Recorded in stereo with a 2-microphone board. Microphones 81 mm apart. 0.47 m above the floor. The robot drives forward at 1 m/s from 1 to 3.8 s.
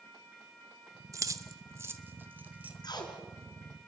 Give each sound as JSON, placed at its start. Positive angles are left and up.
{"t": 1.1, "sound": "keys jangling", "side_deg": -40, "distance_m": 0.9}
{"t": 2.8, "sound": "tape being pulled", "side_deg": 60, "distance_m": 3.0}